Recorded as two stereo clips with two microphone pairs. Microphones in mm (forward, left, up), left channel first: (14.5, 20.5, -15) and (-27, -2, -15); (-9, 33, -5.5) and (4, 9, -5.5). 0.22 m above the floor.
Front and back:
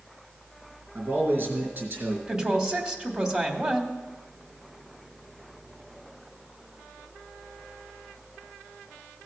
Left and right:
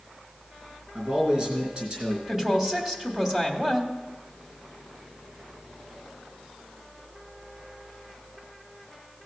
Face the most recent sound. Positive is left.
turn(degrees=-100)